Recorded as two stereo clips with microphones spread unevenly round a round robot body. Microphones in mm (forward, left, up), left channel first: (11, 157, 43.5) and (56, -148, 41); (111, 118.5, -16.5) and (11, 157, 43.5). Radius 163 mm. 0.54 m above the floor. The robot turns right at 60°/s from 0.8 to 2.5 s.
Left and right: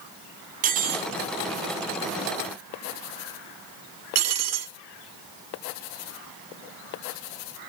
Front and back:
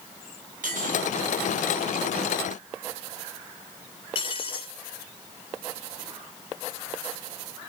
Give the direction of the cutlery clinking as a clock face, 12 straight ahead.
5 o'clock.